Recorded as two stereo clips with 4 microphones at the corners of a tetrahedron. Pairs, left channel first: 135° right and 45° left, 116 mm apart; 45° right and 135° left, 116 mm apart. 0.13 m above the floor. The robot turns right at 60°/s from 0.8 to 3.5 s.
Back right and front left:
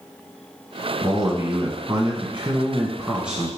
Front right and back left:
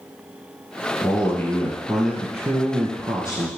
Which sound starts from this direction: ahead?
A man speaking, at 1.0 s.